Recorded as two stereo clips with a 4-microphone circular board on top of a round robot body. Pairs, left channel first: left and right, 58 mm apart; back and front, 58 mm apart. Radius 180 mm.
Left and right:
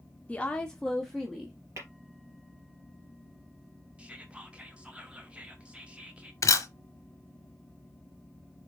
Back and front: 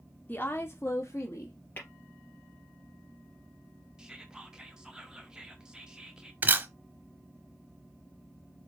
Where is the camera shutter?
60° left, 0.6 m.